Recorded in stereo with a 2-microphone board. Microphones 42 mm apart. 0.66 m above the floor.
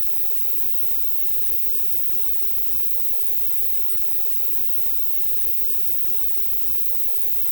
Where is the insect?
25° left (ahead or behind), 3 m.